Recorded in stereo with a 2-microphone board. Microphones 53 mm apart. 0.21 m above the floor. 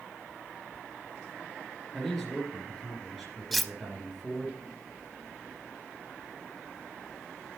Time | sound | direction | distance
1.9 | a man speaking | 5° left (ahead or behind) | 2.5 m
3.5 | cutlery clinking | centre (ahead or behind) | 0.6 m